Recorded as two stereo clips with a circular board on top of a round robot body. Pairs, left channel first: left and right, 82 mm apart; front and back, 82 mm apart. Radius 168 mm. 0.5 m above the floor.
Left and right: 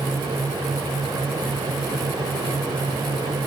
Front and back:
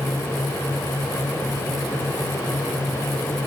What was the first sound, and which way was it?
Only background noise.